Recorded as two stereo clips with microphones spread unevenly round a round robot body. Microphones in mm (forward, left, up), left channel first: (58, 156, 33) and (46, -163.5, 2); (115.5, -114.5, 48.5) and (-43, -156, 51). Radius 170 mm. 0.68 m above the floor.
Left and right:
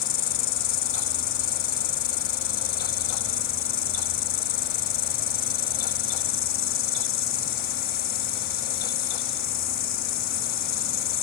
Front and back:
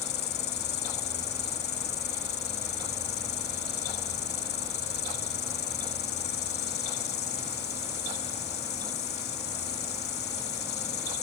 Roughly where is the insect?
Ahead left.